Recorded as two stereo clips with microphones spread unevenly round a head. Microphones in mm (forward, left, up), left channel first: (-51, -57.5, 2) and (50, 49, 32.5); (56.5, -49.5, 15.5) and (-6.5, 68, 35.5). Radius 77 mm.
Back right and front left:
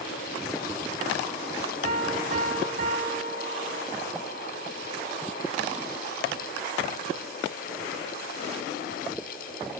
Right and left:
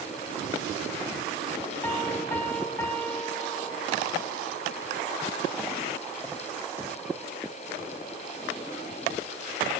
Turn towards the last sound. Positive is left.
turn(degrees=15)